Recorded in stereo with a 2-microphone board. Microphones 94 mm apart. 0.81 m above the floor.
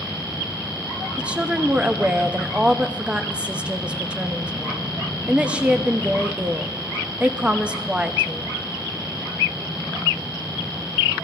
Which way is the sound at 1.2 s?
15° right (ahead or behind).